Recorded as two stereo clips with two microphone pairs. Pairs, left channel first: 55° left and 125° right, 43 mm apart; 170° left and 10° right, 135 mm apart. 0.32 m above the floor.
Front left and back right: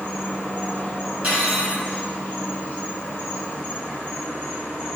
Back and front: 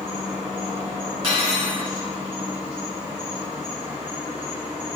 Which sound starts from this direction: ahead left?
An insect, at 0.0 s.